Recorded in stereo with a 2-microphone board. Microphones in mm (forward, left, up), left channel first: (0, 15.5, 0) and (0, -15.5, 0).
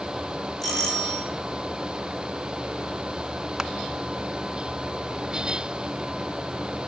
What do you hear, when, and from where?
0.6 s a doorbell: 5° left (ahead or behind), 5.5 m
3.6 s crushing: 15° right (ahead or behind), 0.7 m